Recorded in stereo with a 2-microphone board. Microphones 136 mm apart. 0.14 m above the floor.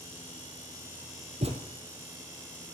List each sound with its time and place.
1.4 s a thud: 50° right (ahead or behind), 1.9 m